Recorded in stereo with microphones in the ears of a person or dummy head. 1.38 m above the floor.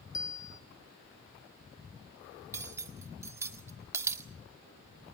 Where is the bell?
20° left (ahead or behind), 2.5 m.